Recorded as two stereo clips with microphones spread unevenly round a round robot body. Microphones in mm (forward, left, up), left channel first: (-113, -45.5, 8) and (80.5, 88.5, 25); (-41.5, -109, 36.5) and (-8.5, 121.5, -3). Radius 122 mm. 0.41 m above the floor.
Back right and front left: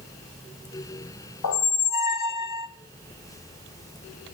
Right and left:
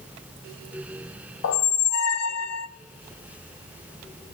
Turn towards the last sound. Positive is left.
turn(degrees=-125)